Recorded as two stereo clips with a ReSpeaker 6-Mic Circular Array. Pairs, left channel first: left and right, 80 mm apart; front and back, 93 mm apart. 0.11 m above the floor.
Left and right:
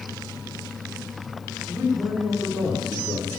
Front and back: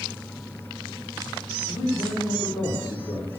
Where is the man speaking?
10° left, 7 m.